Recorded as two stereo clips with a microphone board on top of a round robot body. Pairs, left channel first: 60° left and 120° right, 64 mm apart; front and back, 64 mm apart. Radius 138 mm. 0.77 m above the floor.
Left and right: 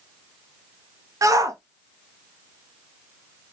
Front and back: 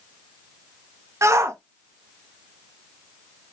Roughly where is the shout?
Behind right.